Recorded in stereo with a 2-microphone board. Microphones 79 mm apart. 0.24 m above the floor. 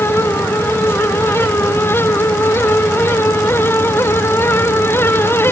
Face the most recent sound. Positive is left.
No sound to turn to.